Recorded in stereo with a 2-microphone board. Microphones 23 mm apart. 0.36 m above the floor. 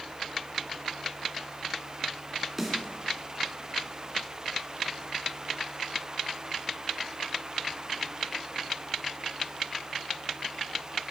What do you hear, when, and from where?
2.6 s a snare drum: 10° right (ahead or behind), 2.5 m